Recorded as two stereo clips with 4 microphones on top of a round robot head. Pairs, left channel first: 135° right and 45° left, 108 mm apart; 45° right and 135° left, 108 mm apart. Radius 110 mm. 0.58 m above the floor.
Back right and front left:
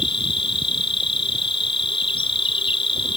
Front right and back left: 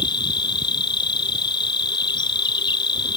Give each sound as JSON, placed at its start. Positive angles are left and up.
{"t": 0.0, "sound": "an insect", "azimuth_deg": -95}